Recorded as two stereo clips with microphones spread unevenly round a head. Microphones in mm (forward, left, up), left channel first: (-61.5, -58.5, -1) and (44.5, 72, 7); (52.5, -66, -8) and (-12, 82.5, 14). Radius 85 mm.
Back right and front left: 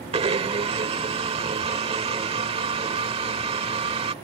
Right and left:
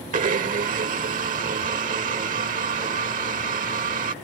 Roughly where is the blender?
Left.